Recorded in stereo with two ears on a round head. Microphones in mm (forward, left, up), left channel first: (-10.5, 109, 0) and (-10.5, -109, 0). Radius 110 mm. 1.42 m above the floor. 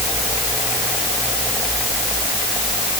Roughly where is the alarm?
No alarm in this recording.